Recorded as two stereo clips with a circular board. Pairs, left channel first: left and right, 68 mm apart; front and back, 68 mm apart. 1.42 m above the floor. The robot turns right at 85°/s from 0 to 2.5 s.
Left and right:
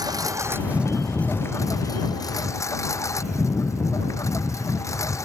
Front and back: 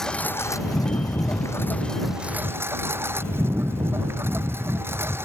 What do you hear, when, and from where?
0.0 s a lawn mower: 85° right; by 5.3 s 130° left